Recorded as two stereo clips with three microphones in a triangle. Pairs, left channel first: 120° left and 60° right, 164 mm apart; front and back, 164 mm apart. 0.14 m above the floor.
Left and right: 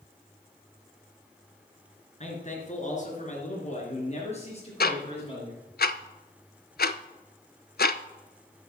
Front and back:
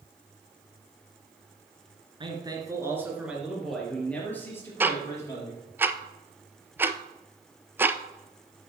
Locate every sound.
2.2 s a man speaking: 135° left, 2.5 m; by 5.6 s 65° left, 4.5 m
4.8 s ticking: 105° left, 0.5 m